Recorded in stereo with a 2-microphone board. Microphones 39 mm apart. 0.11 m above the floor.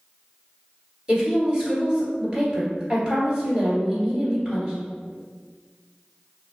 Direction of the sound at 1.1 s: 15° right (ahead or behind).